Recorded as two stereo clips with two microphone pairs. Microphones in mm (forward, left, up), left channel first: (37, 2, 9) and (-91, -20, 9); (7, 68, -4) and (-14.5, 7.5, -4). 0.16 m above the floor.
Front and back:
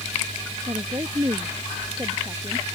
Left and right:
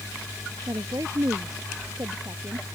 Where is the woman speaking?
115° right; by 2.6 s 105° right.